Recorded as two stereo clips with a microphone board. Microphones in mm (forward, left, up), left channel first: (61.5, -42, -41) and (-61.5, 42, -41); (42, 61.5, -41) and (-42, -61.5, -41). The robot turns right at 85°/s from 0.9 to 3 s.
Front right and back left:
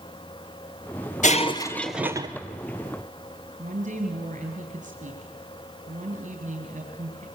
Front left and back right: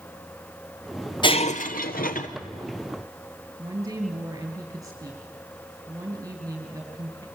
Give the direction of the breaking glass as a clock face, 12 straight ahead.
12 o'clock.